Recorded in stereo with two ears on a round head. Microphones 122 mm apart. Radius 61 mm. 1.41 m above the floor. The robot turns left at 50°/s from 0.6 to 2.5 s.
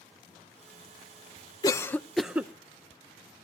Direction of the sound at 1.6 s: 25° left (ahead or behind).